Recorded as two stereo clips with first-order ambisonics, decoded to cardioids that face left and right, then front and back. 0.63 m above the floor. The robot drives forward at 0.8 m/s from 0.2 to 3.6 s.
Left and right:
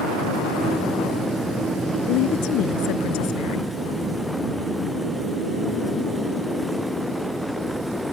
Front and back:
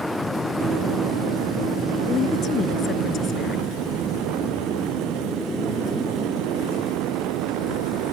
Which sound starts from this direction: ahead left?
A woman speaking, at 2.1 s.